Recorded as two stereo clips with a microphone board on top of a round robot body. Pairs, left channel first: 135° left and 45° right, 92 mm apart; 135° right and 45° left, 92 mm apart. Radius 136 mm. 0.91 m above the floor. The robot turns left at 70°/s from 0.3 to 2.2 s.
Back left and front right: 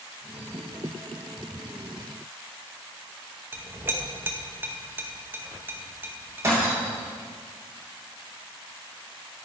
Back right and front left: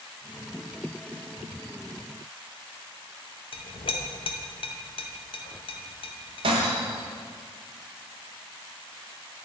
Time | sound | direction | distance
3.5 | a clink | 115° right | 0.8 m
6.4 | breaking glass | 20° left | 0.6 m